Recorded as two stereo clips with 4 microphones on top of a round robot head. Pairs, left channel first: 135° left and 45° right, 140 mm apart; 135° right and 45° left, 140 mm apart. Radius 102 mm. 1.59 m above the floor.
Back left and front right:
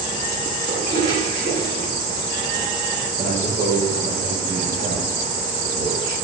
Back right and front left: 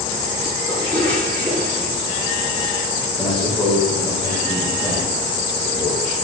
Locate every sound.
0.7 s a toilet flushing: 55° right, 5.5 m
3.2 s a man speaking: 50° right, 5.5 m